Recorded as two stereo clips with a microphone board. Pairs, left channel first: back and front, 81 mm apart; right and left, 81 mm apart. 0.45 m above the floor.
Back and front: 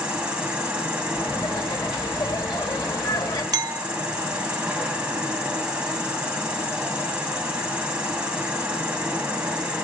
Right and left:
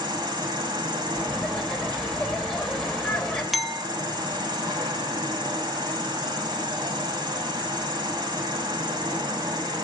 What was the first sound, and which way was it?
An insect, 75° left.